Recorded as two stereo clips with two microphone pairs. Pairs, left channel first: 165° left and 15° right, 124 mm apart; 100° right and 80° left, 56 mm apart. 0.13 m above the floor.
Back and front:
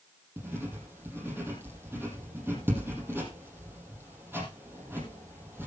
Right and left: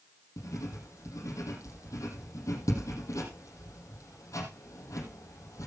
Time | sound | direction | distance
0.4 | writing | 85° right | 5.5 m